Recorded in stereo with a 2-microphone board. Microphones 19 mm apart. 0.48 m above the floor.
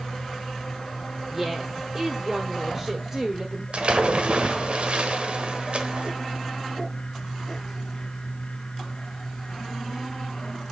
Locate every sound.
1.3 s a woman speaking: 20° right (ahead or behind), 1.2 m
3.7 s a splash: 65° right (ahead or behind), 1.1 m